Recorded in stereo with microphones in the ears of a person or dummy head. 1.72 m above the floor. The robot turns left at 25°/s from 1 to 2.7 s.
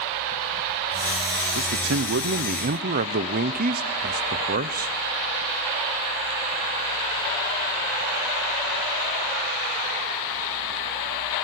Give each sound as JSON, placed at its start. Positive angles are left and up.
{"t": 1.6, "sound": "a man speaking", "side_deg": -80, "distance_m": 1.0}